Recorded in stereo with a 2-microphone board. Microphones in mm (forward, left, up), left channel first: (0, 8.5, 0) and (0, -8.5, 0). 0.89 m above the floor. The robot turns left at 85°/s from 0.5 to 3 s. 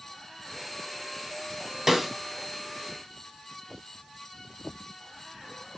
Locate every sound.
1.9 s a snare drum: 25° right (ahead or behind), 2.5 m; by 2.1 s 5° right (ahead or behind), 2.5 m